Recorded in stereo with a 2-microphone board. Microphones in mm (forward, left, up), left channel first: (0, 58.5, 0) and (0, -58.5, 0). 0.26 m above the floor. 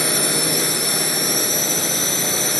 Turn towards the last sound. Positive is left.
turn(degrees=0)  # may be behind; listen again after turning